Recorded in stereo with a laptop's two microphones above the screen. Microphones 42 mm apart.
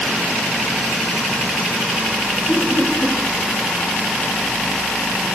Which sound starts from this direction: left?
Laughter, at 2.5 s.